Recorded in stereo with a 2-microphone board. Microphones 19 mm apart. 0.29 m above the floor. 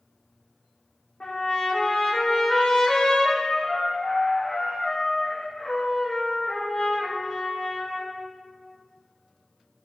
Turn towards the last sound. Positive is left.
turn(degrees=70)  # may be behind; listen again after turning